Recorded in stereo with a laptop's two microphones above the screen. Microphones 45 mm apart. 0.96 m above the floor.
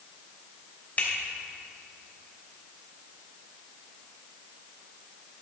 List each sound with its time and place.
1.0 s a finger snap: 40° left (ahead or behind), 3 m